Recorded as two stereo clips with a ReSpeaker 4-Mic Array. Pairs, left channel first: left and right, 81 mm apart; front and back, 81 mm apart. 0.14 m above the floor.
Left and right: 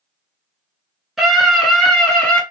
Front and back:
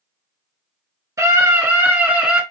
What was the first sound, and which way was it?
A scream, 175° right.